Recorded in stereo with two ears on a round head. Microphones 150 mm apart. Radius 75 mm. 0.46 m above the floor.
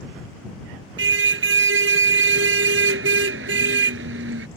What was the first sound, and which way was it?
A car horn, 80° right.